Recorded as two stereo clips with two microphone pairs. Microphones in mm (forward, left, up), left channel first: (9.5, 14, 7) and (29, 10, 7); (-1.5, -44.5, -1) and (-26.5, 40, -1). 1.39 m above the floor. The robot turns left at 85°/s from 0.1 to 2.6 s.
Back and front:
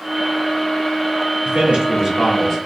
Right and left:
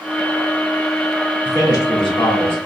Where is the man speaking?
10° right, 2.0 m; by 2.6 s 105° right, 2.0 m.